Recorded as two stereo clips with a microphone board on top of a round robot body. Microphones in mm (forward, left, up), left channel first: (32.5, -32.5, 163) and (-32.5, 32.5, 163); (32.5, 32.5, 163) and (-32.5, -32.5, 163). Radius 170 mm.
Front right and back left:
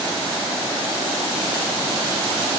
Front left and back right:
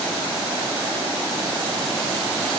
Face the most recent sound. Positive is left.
No sound to turn to.